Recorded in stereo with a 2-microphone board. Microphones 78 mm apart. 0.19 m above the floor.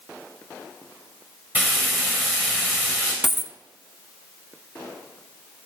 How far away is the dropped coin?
About 0.6 m.